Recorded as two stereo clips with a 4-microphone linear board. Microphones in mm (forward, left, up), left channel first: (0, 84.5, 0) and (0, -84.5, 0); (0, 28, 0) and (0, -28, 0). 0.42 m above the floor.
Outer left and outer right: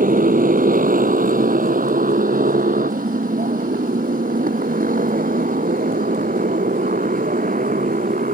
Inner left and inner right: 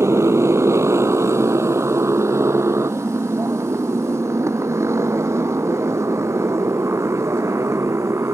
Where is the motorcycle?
55° right (ahead or behind).